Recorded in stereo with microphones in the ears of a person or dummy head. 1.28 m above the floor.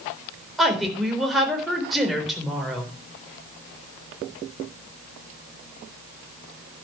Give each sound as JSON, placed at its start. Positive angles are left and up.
{"t": 0.6, "sound": "a woman speaking", "side_deg": 0, "distance_m": 4.0}